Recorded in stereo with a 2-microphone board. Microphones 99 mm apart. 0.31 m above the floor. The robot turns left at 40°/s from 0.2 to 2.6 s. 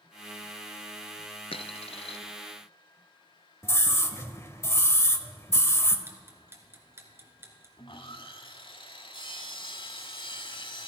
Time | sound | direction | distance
1.5 | a dropped coin | 65° left (ahead or behind) | 0.8 m
3.6 | a scream | 25° left (ahead or behind) | 1.3 m
6.1 | ticking | 20° right (ahead or behind) | 2 m
7.8 | sawing | 55° left (ahead or behind) | 1.1 m